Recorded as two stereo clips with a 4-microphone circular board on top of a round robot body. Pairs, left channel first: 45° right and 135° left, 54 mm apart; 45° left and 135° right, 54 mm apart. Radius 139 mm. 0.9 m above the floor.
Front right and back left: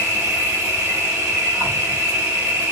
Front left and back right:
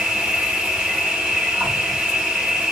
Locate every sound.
0.0 s an insect: 155° left, 1.1 m